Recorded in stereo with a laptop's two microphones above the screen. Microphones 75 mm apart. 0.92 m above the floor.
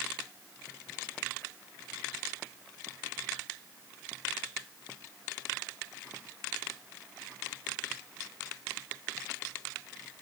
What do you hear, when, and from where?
Only background noise.